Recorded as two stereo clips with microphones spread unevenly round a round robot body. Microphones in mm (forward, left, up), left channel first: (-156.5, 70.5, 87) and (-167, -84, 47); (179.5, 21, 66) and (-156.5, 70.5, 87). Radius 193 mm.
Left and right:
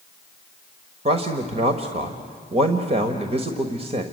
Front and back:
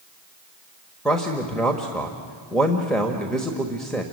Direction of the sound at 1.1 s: 95° right.